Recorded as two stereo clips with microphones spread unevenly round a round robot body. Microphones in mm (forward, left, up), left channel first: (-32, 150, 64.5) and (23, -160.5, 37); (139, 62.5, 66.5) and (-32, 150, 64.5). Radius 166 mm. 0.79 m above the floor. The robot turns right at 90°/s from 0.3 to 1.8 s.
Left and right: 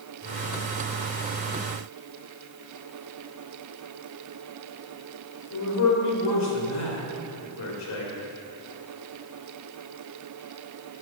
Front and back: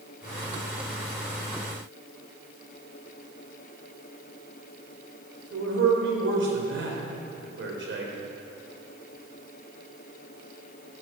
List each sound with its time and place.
5.5 s a man speaking: 140° left, 3 m